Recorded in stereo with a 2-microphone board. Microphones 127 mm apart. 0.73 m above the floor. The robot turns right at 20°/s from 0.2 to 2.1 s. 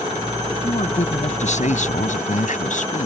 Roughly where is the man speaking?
Left.